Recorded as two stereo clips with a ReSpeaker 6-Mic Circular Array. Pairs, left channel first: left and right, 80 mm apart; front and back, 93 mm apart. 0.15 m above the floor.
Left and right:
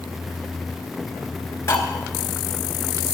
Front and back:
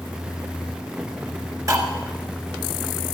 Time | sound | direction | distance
1.7 | cutlery clinking | 135° left | 1.1 m